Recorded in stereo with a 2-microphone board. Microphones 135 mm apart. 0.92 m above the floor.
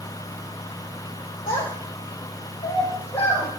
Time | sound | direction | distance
1.5 | a child speaking | 90° left | 1.6 m